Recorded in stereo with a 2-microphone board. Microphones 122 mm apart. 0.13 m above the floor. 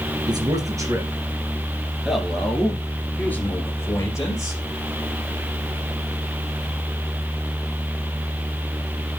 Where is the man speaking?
35° right (ahead or behind), 2.5 m; by 4.6 s 30° left (ahead or behind), 3 m.